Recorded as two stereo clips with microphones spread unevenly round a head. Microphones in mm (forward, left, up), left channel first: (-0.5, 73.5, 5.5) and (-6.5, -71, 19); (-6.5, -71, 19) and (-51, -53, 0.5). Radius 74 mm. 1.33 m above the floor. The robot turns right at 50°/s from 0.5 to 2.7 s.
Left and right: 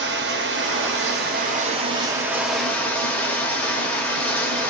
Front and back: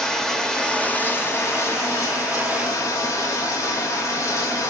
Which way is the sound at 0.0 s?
105° right.